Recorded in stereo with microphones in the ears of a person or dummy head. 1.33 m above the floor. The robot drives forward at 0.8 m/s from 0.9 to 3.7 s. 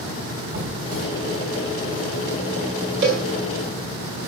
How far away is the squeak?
About 5 m.